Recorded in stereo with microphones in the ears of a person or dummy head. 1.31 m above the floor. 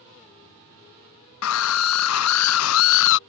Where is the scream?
80° left; by 3.2 s 65° left (ahead or behind).